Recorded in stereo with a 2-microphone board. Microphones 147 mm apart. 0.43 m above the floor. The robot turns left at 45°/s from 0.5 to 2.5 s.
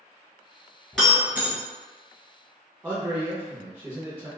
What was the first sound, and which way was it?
Breaking glass, 5° left (ahead or behind).